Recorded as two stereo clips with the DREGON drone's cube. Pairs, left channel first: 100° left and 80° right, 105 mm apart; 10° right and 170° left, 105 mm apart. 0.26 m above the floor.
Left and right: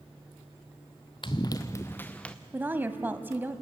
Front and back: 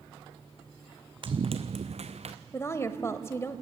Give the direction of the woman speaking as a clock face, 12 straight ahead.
1 o'clock.